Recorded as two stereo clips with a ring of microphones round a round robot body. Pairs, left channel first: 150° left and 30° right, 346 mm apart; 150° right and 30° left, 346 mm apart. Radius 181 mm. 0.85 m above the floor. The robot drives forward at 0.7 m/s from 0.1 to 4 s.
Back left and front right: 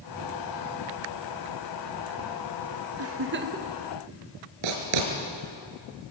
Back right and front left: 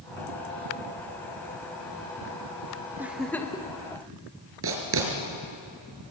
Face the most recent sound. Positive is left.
turn(degrees=-25)